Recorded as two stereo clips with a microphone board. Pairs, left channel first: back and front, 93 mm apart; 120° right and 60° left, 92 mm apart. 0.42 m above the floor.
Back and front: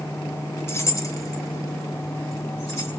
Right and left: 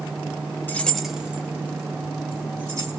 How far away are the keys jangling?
About 0.8 m.